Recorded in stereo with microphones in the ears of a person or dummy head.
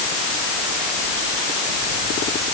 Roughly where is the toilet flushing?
I don't hear a toilet flushing.